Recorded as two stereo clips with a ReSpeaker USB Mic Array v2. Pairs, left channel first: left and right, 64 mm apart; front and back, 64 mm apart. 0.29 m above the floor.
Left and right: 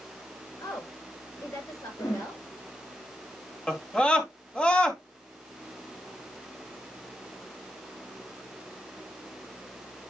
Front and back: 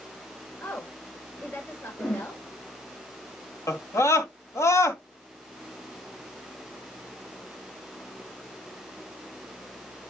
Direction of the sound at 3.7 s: 20° left.